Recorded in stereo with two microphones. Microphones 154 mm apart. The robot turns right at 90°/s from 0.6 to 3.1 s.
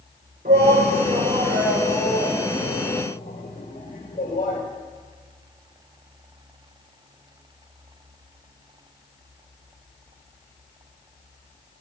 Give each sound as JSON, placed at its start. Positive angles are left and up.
{"t": 0.5, "sound": "a shout", "side_deg": -75, "distance_m": 4.0}